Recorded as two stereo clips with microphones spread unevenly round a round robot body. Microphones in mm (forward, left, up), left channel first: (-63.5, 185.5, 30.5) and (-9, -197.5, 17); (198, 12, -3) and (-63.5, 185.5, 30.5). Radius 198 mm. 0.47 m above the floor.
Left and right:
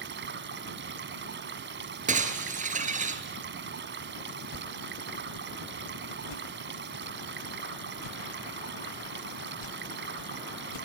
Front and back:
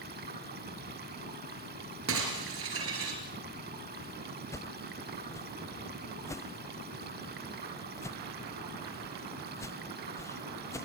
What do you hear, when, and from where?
0.0 s running water: 145° right, 1.9 m
2.1 s breaking glass: 155° right, 3.5 m
4.5 s a whoosh: 50° left, 0.7 m